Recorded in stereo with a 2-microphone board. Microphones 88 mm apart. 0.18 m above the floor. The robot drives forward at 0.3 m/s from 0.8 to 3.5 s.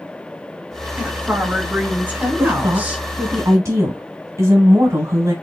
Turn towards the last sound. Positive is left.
turn(degrees=-35)  # may be behind; listen again after turning